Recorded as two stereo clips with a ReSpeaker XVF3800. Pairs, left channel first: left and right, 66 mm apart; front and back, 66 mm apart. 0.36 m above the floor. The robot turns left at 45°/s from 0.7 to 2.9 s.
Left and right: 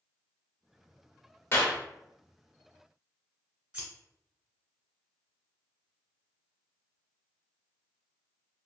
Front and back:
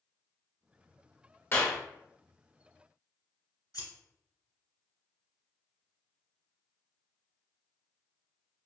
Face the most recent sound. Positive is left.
turn(degrees=-15)